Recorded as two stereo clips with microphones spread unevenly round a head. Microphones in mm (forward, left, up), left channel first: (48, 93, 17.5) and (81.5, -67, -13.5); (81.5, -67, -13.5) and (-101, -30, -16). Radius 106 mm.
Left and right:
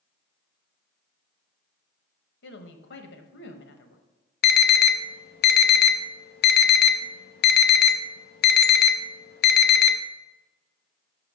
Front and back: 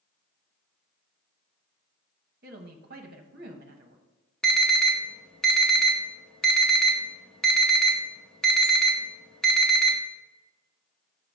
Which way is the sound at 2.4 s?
120° left.